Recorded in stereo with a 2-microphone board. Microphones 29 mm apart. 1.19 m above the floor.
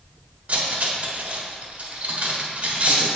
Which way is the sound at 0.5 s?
50° right (ahead or behind).